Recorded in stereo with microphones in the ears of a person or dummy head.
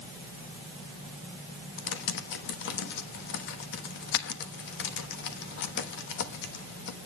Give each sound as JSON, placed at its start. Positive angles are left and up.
{"t": 1.8, "sound": "typing on a keyboard", "side_deg": 55, "distance_m": 1.2}